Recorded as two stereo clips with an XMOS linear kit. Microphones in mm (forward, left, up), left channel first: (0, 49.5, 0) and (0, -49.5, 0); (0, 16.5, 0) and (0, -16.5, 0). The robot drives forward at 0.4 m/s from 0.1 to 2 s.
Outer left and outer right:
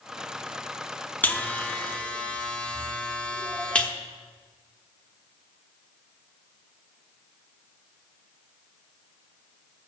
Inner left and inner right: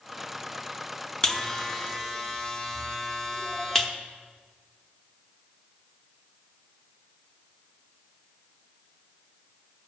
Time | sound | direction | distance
1.2 | a buzzer | 15° left (ahead or behind) | 0.6 m